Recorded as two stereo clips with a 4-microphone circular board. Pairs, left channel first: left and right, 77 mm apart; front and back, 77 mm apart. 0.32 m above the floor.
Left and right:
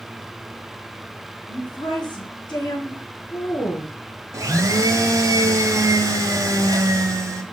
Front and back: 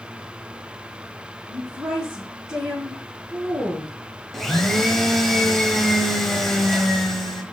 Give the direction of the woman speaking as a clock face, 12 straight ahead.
9 o'clock.